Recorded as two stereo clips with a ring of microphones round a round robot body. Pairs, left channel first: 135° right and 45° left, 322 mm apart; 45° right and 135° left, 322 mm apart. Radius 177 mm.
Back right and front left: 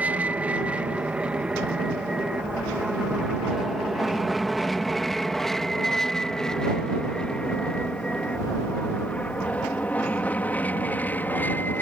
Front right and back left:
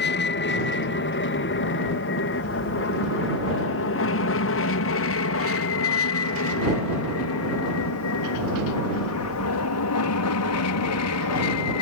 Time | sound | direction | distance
0.0 | an aircraft | 35° right | ?